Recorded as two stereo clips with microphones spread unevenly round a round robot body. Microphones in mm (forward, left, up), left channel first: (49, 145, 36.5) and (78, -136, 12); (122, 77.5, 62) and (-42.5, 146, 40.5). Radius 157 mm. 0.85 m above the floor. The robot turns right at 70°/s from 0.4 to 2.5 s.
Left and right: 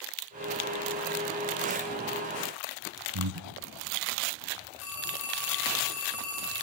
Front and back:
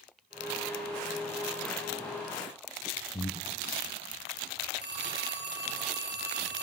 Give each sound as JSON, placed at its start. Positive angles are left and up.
{"t": 3.1, "sound": "breathing", "azimuth_deg": -90, "distance_m": 2.0}
{"t": 4.8, "sound": "a phone ringing", "azimuth_deg": 140, "distance_m": 8.0}